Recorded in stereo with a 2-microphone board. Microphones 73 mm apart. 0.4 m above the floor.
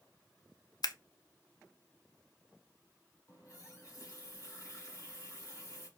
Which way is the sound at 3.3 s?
40° left (ahead or behind).